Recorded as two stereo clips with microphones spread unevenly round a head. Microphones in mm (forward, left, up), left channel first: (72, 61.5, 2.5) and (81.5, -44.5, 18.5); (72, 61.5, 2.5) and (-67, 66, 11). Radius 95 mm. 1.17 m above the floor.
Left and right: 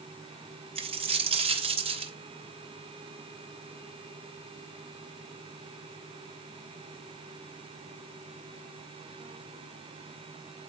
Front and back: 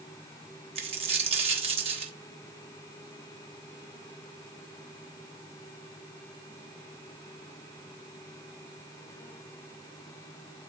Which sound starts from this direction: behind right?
A dropped coin, at 0.8 s.